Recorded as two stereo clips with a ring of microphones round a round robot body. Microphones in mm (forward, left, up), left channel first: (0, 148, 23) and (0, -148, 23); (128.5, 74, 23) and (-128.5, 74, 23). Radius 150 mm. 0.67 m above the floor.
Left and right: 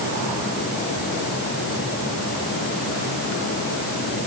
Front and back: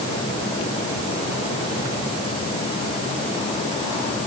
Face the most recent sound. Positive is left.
No sound to turn to.